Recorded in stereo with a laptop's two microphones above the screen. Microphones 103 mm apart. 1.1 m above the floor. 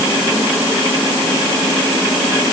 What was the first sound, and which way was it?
Only background noise.